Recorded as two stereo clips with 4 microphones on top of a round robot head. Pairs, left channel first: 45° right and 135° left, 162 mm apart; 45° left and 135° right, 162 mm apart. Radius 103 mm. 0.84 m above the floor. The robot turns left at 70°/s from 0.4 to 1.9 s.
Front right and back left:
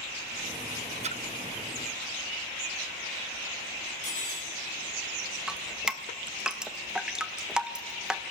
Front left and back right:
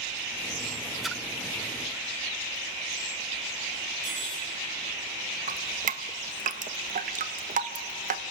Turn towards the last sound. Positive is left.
turn(degrees=-140)